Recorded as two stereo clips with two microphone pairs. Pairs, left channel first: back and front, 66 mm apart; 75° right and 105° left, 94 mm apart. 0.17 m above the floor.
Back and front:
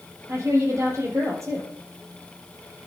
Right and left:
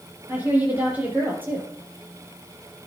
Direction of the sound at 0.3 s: 35° left.